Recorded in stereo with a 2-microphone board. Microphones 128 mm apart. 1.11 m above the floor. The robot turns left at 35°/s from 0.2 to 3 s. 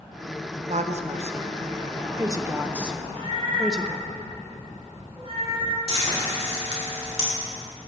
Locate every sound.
0.7 s a woman speaking: 65° right (ahead or behind), 0.7 m; by 4.0 s 5° right (ahead or behind), 0.7 m
3.0 s a cat meowing: 45° right (ahead or behind), 2.5 m; by 5.8 s 50° right (ahead or behind), 2.5 m
5.9 s frying: 55° right (ahead or behind), 3.5 m